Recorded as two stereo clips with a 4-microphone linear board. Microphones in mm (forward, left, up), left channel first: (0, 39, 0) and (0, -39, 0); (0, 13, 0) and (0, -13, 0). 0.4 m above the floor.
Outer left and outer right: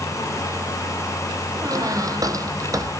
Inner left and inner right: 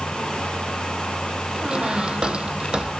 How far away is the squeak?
About 2.5 m.